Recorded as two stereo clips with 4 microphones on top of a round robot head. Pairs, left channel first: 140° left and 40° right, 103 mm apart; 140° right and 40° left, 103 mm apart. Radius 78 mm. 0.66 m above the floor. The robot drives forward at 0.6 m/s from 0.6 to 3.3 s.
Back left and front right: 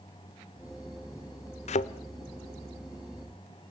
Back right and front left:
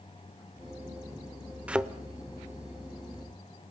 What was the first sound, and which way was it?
A thud, 120° left.